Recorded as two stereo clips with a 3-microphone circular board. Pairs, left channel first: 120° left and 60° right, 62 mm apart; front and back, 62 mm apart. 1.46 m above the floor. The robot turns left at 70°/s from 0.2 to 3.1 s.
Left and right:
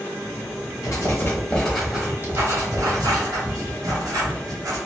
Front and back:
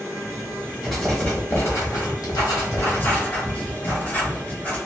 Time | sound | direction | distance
0.8 | writing | 95° left | 1.3 m